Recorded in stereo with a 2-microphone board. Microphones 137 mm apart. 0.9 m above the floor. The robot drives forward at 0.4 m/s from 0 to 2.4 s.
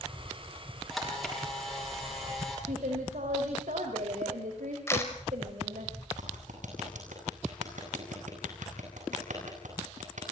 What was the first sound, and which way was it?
A camera shutter, centre (ahead or behind).